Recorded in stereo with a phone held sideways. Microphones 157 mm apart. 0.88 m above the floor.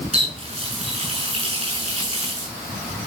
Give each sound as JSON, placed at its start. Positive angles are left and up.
{"t": 0.1, "sound": "a running tap", "side_deg": -35, "distance_m": 7.5}